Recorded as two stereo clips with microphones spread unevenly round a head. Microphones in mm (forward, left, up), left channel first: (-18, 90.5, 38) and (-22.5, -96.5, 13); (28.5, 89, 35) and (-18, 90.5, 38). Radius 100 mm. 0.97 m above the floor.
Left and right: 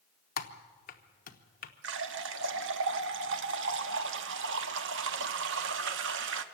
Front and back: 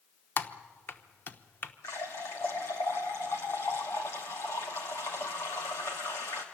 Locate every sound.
0.4 s typing on a keyboard: 40° left, 1.0 m
1.8 s a running tap: 60° right, 1.0 m